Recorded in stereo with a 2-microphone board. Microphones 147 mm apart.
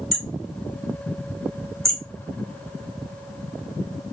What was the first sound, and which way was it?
Hammering, centre (ahead or behind).